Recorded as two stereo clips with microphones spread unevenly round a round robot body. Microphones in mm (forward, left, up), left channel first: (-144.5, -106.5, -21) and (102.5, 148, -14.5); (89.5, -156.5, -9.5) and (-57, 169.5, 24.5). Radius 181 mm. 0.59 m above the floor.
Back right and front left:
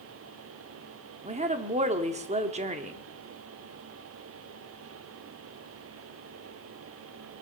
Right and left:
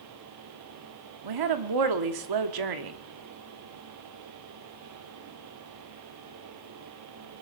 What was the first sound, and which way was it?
A woman speaking, 115° left.